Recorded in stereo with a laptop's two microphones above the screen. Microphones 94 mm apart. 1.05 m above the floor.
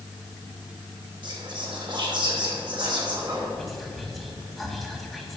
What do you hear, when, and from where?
1.2 s whispering: 55° right (ahead or behind), 2.5 m
3.6 s whispering: centre (ahead or behind), 1.9 m